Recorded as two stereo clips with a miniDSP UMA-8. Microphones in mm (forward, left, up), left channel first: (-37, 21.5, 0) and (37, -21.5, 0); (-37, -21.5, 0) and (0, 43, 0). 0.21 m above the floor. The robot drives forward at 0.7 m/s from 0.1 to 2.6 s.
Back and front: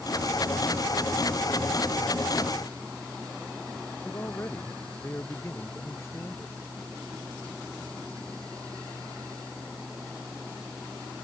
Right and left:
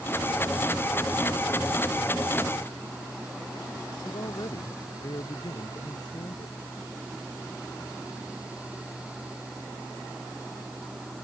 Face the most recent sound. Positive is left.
turn(degrees=-150)